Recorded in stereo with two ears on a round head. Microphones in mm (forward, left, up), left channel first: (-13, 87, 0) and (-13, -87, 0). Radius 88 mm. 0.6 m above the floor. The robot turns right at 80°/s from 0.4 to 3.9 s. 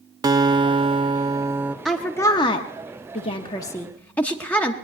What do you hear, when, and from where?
0.2 s a guitar: 20° right (ahead or behind), 0.6 m; by 1.8 s 10° right (ahead or behind), 0.6 m
1.9 s a woman speaking: centre (ahead or behind), 0.8 m; by 4.7 s 10° left (ahead or behind), 0.8 m